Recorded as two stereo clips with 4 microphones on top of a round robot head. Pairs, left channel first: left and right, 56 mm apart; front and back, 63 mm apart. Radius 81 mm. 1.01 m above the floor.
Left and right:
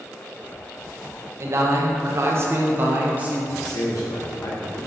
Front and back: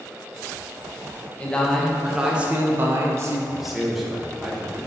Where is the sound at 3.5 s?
95° left, 1.7 m.